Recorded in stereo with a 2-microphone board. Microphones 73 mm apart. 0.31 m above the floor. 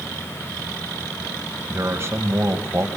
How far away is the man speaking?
About 1.9 m.